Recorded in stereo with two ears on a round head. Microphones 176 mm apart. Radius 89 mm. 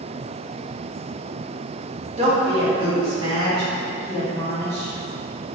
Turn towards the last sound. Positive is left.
turn(degrees=-20)  # may be behind; listen again after turning